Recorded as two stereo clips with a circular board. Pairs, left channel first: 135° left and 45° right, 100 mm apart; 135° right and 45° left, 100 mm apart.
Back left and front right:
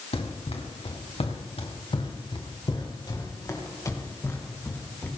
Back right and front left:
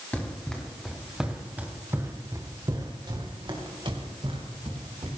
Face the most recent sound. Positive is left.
turn(degrees=65)